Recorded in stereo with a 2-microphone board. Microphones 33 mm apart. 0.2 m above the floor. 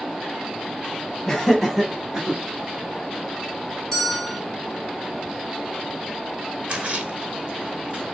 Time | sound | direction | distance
1.3 | laughter | 20° left (ahead or behind) | 1.0 m
3.9 | a bell | 15° left (ahead or behind) | 1.4 m
6.7 | a splash | 40° right (ahead or behind) | 0.8 m